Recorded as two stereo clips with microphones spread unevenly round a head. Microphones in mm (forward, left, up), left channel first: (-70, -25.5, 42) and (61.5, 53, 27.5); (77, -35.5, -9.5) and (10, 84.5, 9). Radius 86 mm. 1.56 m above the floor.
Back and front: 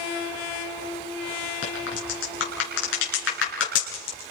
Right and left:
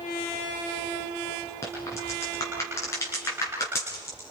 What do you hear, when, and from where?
1.6 s a crack: 140° right, 7 m